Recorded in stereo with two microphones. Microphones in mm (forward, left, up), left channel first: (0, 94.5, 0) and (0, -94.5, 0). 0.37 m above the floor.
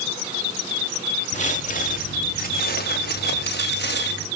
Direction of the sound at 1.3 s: 40° left (ahead or behind).